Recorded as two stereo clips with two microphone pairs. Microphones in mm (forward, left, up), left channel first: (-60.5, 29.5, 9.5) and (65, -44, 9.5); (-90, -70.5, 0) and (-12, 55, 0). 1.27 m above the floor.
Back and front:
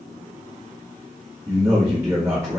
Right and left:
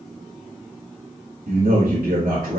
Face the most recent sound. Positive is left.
turn(degrees=35)